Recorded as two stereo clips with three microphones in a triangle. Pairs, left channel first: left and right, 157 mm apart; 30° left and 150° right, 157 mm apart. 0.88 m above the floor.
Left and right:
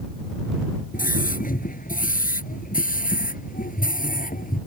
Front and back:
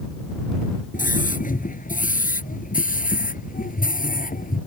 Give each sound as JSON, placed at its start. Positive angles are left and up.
{"t": 0.9, "sound": "a scream", "azimuth_deg": 60}